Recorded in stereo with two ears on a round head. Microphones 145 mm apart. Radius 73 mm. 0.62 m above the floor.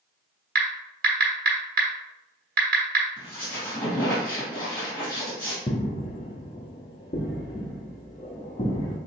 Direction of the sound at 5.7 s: 35° left (ahead or behind).